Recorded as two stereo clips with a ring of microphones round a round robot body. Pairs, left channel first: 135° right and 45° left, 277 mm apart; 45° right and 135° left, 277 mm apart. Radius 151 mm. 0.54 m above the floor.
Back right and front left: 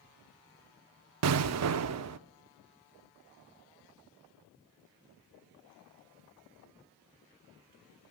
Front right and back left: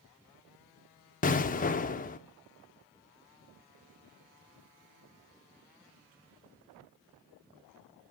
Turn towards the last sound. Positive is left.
turn(degrees=15)